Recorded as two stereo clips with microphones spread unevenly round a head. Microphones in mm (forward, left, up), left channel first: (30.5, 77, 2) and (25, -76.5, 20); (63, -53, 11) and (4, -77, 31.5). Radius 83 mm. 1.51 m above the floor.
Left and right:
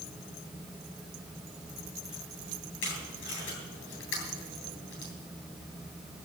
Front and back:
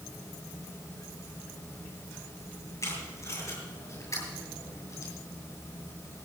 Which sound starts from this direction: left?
Tape being pulled, at 2.8 s.